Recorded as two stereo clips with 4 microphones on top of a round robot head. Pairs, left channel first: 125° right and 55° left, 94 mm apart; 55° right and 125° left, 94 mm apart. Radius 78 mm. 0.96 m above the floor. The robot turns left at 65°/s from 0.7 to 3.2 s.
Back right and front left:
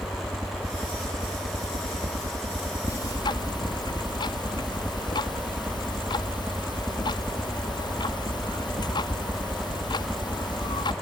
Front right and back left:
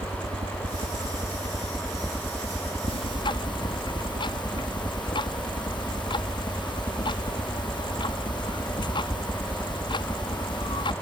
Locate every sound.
0.0 s a helicopter: 125° left; by 11.0 s 10° right
2.9 s ticking: 70° right; by 10.9 s 90° right